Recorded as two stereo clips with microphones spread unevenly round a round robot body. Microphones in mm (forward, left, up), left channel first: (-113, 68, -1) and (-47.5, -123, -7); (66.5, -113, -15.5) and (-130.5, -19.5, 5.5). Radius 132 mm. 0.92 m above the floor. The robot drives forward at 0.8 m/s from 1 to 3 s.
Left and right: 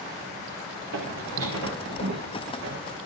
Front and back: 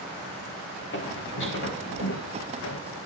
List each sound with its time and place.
0.9 s footsteps: 60° right, 4 m; by 2.8 s 30° right, 2.5 m